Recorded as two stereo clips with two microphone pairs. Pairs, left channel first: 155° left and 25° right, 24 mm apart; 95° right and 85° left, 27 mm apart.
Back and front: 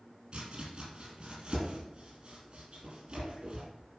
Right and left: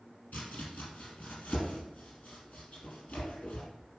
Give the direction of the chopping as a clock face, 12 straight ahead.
2 o'clock.